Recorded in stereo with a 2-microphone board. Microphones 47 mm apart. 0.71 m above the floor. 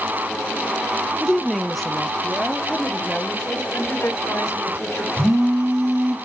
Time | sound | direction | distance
1.2 | a woman speaking | centre (ahead or behind) | 0.5 m
3.7 | a woman speaking | 60° left (ahead or behind) | 2.5 m
5.2 | a phone buzzing | 65° right (ahead or behind) | 5.5 m